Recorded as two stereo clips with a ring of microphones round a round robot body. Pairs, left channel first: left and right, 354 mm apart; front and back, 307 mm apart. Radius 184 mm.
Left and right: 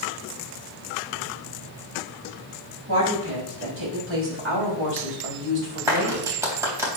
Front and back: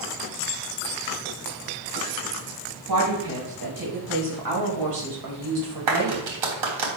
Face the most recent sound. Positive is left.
turn(degrees=-175)